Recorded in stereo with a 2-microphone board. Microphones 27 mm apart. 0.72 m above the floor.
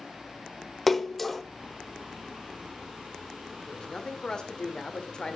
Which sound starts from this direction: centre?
A splash, at 0.9 s.